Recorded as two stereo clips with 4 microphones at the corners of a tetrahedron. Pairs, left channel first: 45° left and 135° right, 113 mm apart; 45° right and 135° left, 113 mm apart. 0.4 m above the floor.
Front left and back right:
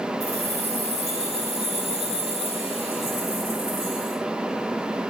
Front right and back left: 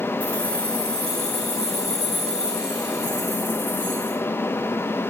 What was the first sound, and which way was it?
Keys jangling, 125° right.